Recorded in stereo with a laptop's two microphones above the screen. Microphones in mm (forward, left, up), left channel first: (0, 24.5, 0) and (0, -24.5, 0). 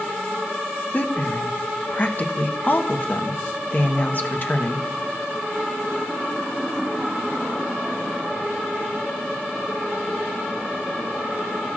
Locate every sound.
0.9 s a woman speaking: 40° left (ahead or behind), 1.0 m